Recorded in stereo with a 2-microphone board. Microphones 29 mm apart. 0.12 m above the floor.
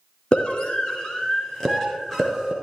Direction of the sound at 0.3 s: 35° left (ahead or behind).